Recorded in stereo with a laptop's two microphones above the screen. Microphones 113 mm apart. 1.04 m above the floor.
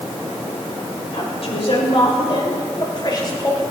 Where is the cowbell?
No cowbell in this recording.